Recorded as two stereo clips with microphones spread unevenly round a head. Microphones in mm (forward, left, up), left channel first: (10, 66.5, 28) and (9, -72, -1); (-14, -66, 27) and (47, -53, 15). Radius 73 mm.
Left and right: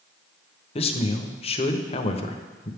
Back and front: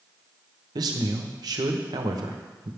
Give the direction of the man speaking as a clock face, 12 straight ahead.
11 o'clock.